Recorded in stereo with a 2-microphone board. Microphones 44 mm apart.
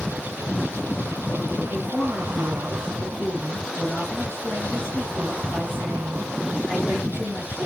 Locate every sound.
1.7 s a woman speaking: 45° left (ahead or behind), 9.5 m